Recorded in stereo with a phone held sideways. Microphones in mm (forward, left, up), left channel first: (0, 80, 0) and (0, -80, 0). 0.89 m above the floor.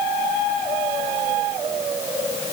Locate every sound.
Only background noise.